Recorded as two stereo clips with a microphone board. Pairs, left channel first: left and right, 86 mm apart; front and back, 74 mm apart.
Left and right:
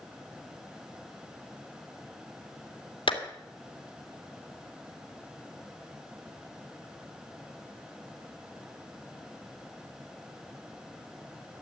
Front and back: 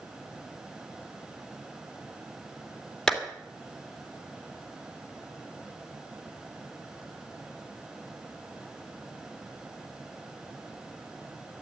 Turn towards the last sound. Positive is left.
turn(degrees=80)